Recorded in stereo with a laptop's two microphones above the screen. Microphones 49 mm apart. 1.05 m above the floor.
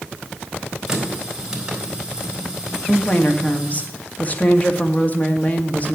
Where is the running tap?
15° right (ahead or behind), 3.5 m.